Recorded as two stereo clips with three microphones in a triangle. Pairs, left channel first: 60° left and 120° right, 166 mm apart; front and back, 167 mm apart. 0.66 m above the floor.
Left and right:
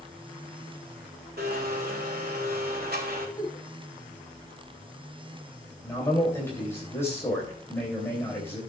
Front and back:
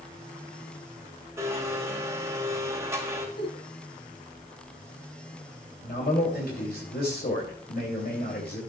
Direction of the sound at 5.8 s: 15° right.